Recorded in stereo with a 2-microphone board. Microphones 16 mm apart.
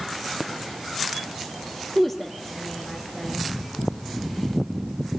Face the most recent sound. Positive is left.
turn(degrees=15)  # may be behind; listen again after turning